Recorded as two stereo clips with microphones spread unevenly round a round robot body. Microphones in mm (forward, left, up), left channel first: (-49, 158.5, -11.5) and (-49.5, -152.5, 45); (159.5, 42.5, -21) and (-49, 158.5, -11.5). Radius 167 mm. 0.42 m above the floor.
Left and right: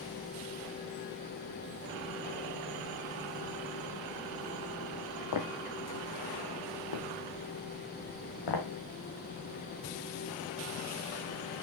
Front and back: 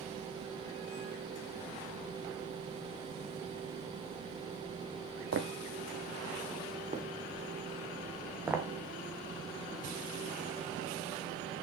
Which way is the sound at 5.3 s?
120° left.